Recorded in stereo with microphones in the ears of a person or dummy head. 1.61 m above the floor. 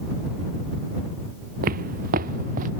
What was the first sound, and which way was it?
Footsteps, 45° right (ahead or behind).